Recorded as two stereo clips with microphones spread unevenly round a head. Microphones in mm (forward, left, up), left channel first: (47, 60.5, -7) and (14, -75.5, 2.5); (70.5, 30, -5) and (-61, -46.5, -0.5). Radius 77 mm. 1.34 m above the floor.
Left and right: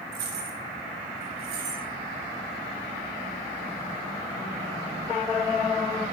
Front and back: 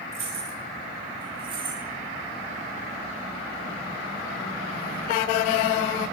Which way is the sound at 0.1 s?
100° right.